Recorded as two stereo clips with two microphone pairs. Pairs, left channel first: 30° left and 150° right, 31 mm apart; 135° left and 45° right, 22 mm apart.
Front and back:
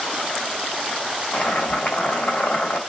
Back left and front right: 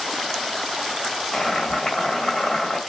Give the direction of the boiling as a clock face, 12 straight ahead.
10 o'clock.